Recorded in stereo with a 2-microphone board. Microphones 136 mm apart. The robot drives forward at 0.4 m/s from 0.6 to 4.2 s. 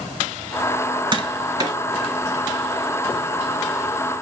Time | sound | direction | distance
1.1 | tapping | 35° right (ahead or behind) | 1.1 m